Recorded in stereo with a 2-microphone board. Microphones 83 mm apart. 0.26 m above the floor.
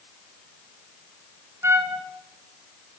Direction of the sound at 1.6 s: 35° right (ahead or behind).